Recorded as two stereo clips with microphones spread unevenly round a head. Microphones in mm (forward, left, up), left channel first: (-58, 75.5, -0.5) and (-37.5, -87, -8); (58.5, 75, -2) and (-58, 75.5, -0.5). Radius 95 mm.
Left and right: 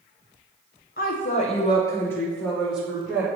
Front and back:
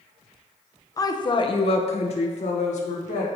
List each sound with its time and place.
1.0 s a woman speaking: 55° left, 0.8 m; by 3.3 s 5° right, 1.5 m